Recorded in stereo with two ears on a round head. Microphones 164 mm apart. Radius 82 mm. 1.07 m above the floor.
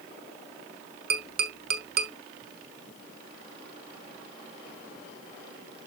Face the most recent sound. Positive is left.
turn(degrees=-50)  # may be behind; listen again after turning